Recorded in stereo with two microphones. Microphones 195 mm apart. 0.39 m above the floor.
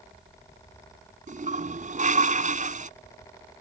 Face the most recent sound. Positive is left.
turn(degrees=-40)  # may be behind; listen again after turning